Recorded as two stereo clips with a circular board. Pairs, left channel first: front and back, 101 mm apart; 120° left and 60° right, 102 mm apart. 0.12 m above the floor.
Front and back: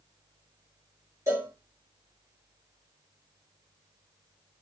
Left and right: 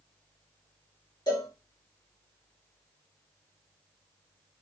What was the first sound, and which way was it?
A cowbell, 135° left.